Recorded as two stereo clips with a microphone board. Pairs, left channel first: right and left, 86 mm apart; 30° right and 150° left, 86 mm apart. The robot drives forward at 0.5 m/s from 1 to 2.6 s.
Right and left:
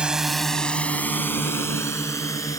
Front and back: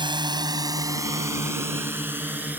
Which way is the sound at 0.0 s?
170° left.